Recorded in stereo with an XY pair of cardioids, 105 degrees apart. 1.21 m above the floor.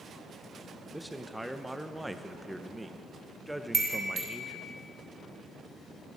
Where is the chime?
35° right, 2 m.